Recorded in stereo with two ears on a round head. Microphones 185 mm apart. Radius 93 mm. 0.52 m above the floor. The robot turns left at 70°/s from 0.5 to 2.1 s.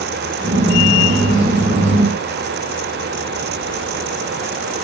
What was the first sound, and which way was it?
Only background noise.